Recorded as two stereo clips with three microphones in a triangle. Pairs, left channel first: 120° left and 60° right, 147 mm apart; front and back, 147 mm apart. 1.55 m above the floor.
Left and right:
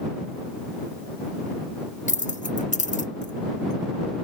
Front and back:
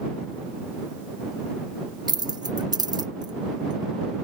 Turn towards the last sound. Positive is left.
turn(degrees=125)